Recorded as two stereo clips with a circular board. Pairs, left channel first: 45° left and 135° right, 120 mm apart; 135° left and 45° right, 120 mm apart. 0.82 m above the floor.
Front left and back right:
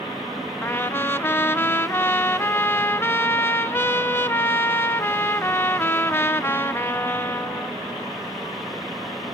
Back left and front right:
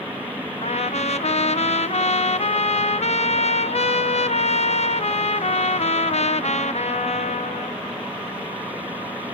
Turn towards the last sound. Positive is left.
turn(degrees=115)